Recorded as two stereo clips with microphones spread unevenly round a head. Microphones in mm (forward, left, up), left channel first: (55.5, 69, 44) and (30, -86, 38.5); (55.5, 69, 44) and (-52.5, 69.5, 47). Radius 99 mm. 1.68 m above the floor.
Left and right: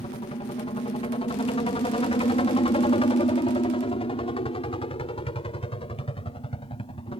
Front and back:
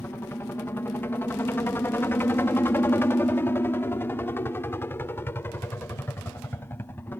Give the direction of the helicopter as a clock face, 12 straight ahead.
10 o'clock.